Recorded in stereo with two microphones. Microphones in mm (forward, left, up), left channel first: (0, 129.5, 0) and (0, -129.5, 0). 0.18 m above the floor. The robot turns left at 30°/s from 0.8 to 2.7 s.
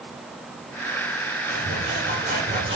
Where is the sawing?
120° right, 7 m; by 2.8 s 155° right, 7 m.